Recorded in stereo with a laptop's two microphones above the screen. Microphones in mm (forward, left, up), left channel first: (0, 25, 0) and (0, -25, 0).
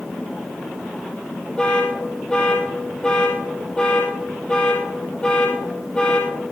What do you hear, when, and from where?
1.6 s an alarm: 20° left (ahead or behind), 7 m